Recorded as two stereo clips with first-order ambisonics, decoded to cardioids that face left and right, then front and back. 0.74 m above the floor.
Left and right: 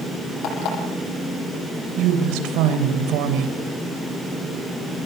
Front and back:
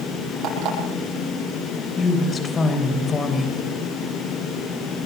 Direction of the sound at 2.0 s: 70° right.